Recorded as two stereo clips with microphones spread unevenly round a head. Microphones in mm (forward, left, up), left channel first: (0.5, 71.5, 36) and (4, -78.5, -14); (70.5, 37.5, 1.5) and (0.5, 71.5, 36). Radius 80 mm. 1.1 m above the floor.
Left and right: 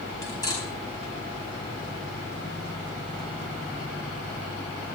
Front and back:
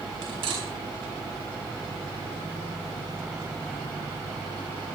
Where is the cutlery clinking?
160° left, 4.5 m.